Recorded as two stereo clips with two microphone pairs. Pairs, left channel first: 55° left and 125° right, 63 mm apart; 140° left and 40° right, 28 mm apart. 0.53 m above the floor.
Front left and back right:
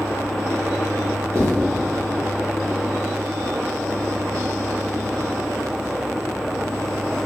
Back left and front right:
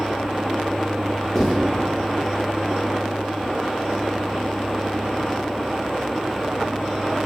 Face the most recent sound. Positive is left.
turn(degrees=-140)